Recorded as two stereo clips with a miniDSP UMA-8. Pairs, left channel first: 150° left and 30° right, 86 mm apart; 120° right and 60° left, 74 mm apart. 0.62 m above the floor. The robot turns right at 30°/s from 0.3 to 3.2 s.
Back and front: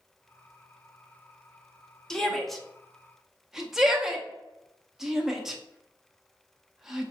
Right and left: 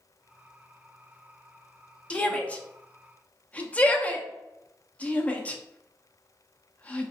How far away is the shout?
About 0.6 m.